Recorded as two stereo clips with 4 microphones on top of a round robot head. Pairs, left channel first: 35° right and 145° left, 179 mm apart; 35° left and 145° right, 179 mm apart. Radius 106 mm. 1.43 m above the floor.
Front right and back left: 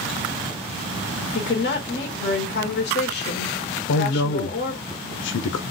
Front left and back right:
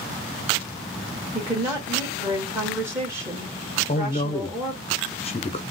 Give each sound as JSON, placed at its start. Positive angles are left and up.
{"t": 1.3, "sound": "a woman speaking", "azimuth_deg": -70, "distance_m": 1.5}
{"t": 3.9, "sound": "a man speaking", "azimuth_deg": -20, "distance_m": 0.6}